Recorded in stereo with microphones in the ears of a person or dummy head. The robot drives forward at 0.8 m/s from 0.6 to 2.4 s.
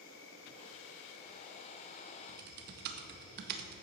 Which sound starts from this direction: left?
An insect, at 0.0 s.